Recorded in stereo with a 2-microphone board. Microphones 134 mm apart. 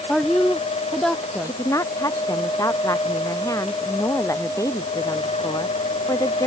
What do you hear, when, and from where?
0.1 s a woman speaking: 5° left (ahead or behind)
1.4 s a woman speaking: 25° left (ahead or behind)